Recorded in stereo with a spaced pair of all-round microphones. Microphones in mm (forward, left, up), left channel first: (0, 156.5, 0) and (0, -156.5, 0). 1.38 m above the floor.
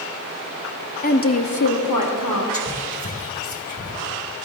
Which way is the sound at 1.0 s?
25° left (ahead or behind).